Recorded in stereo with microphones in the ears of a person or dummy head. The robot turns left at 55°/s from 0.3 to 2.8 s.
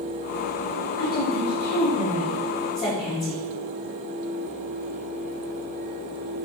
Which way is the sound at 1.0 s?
130° left.